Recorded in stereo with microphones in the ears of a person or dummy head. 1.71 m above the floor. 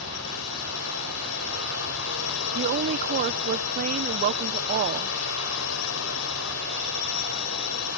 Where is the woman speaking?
45° right (ahead or behind).